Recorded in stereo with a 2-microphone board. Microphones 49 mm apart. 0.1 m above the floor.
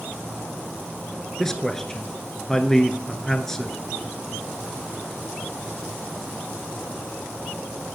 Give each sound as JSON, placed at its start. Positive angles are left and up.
{"t": 1.4, "sound": "a man speaking", "side_deg": 10, "distance_m": 1.1}